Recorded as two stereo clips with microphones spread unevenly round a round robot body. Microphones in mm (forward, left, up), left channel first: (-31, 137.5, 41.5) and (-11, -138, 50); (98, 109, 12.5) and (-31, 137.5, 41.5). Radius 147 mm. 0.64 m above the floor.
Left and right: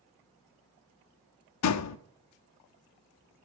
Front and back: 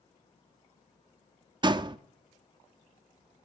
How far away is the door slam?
About 0.8 m.